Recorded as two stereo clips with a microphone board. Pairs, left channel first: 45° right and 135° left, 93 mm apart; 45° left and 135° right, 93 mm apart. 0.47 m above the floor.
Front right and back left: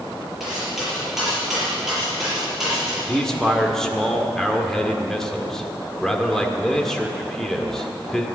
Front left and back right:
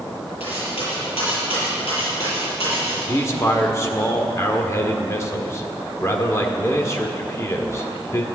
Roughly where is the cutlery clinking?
Ahead left.